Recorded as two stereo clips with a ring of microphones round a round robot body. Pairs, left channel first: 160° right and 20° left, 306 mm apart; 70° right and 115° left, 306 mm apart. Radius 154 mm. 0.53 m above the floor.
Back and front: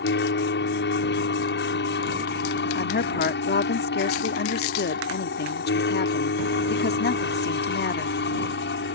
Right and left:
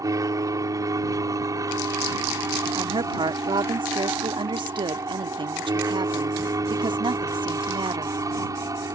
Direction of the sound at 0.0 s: 175° right.